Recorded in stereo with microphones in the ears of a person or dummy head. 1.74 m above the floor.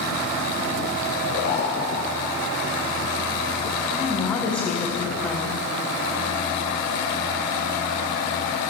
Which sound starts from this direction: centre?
A woman speaking, at 3.8 s.